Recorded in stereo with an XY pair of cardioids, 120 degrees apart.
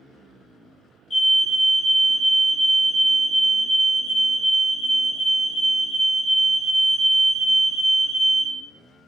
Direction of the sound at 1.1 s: 40° left.